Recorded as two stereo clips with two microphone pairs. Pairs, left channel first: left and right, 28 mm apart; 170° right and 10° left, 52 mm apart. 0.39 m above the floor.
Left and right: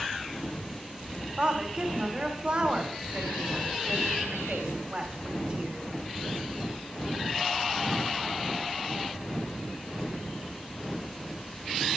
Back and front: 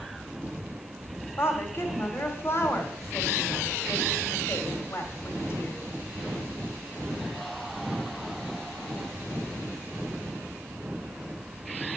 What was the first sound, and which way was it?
A woman speaking, 140° right.